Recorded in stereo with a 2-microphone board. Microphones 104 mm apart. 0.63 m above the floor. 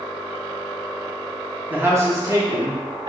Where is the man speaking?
15° right (ahead or behind), 0.9 m; by 3.1 s 45° right (ahead or behind), 1.5 m.